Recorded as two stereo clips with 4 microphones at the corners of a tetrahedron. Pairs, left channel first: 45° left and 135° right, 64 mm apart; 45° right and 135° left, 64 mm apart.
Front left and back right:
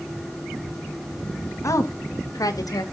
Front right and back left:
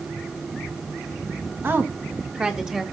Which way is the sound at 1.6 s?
80° left.